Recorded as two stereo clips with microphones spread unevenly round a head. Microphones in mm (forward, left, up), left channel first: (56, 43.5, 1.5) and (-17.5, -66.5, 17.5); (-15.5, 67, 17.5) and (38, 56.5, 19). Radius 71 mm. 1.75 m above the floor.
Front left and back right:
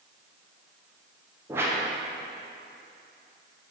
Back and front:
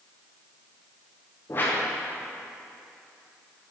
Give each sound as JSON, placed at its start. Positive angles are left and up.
{"t": 1.5, "sound": "a whoosh", "azimuth_deg": -175, "distance_m": 0.6}